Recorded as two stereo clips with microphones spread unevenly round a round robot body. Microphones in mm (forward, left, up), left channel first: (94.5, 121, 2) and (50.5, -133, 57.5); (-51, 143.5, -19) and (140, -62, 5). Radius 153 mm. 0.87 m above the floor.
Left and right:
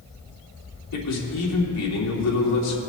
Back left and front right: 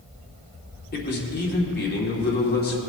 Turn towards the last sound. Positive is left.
turn(degrees=80)